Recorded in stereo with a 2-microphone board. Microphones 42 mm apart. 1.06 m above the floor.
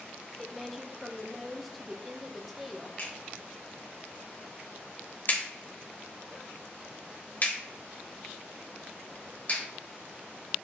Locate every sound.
0.4 s a woman speaking: centre (ahead or behind), 0.7 m
3.0 s a clap: 45° left (ahead or behind), 2.5 m